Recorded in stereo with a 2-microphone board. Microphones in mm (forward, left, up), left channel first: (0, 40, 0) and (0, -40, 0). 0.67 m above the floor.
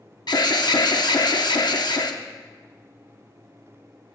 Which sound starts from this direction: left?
An alarm, at 0.3 s.